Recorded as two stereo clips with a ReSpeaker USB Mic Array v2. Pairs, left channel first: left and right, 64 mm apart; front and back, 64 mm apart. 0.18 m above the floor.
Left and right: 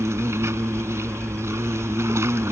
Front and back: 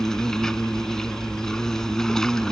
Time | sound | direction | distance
0.0 | an insect | 80° right | ?